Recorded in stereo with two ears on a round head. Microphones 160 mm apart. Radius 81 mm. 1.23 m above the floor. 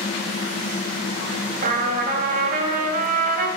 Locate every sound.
1.6 s a trumpet: 45° right (ahead or behind), 1.5 m